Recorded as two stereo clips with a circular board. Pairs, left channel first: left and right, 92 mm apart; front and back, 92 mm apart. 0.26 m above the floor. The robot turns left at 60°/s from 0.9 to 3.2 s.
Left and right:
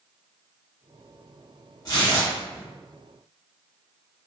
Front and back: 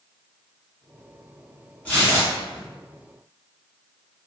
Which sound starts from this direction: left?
Tearing paper, at 1.9 s.